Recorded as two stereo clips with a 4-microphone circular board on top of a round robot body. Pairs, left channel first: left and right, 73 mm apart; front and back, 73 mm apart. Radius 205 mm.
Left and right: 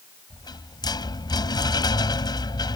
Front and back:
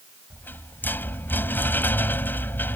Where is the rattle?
65° left.